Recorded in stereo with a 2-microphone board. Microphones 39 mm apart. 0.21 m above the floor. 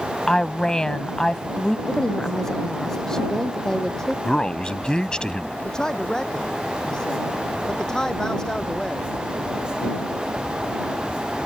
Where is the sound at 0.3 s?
15° left (ahead or behind).